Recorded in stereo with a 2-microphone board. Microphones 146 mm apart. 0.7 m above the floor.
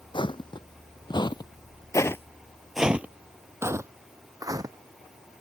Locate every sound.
0.1 s footsteps: 35° left (ahead or behind); by 4.8 s 25° right (ahead or behind)